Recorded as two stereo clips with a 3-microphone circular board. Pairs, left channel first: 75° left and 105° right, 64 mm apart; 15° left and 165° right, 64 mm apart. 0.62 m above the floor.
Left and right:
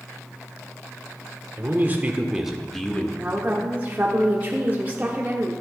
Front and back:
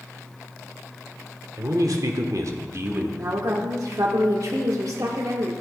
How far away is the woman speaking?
About 1.1 m.